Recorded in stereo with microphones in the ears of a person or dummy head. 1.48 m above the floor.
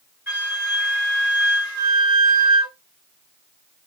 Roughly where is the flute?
Centre.